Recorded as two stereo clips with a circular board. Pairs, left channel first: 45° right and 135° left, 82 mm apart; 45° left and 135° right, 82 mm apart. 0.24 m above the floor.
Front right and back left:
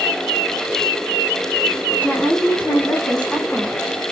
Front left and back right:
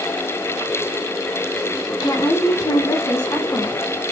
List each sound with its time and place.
2.0 s a woman speaking: 20° left, 3 m; by 3.8 s 35° left, 2 m